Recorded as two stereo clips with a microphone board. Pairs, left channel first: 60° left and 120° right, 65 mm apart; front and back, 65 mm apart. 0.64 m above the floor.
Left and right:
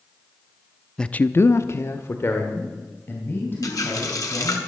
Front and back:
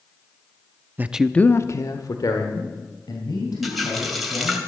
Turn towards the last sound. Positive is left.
turn(degrees=90)